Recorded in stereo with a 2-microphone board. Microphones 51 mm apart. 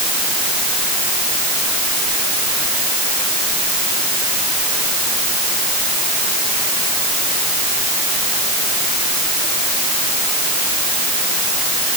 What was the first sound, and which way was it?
Only background noise.